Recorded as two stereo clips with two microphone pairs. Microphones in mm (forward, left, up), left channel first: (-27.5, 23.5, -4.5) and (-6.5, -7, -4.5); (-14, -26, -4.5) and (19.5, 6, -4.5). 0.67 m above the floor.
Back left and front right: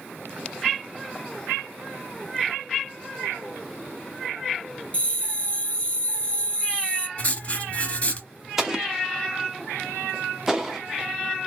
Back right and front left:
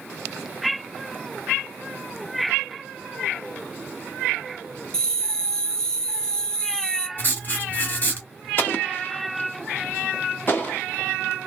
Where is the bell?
160° left, 1.0 m.